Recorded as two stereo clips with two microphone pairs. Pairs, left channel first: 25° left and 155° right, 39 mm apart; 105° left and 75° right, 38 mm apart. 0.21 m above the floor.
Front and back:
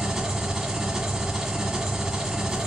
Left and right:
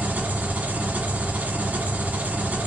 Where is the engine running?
85° right, 1.5 m.